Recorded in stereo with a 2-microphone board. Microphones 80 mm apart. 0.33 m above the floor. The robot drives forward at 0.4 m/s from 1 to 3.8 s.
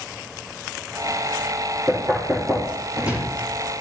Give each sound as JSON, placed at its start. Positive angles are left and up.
{"t": 1.9, "sound": "knocking", "side_deg": -25, "distance_m": 6.0}